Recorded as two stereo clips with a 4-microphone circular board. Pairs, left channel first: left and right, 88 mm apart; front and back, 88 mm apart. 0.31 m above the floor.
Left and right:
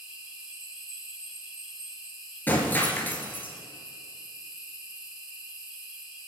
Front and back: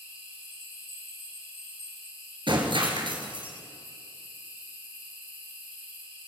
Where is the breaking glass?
160° left, 2.5 m.